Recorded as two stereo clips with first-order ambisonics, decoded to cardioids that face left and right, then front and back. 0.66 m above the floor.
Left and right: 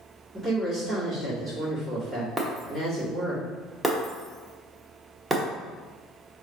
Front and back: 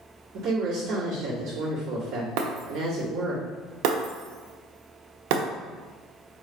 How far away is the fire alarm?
No fire alarm in this recording.